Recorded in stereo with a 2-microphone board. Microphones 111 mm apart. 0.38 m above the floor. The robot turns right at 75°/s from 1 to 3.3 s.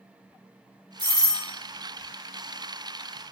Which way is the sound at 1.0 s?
20° left (ahead or behind).